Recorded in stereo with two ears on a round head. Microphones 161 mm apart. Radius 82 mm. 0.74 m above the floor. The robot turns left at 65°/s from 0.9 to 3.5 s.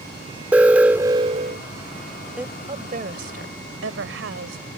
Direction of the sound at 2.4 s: 5° right.